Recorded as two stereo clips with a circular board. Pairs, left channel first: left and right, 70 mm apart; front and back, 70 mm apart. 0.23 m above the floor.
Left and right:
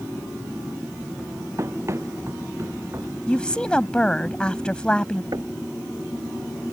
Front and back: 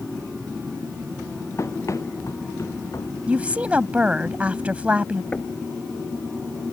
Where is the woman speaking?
140° left.